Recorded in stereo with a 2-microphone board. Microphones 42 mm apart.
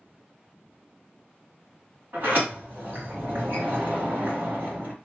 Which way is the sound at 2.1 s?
50° right (ahead or behind).